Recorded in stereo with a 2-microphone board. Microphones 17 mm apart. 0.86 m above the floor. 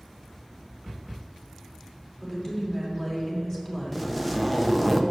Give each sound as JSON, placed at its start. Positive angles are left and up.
{"t": 2.2, "sound": "a woman speaking", "side_deg": 30, "distance_m": 3.0}
{"t": 3.9, "sound": "a zipper", "side_deg": 0, "distance_m": 0.8}